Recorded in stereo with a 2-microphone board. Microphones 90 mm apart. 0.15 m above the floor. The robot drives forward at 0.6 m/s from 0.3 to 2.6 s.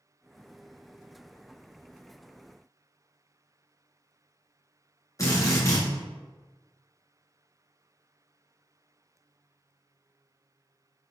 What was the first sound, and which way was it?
A drill, 40° left (ahead or behind).